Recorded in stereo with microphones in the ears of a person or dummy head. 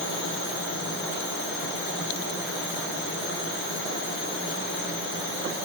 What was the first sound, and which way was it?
Only background noise.